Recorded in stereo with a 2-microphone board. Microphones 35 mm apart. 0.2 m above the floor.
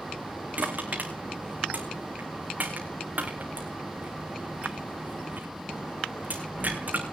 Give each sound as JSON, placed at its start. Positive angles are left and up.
{"t": 0.6, "sound": "crushing", "side_deg": -45, "distance_m": 3.0}